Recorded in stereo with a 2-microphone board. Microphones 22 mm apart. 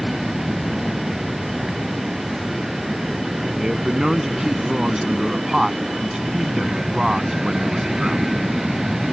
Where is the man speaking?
25° right (ahead or behind).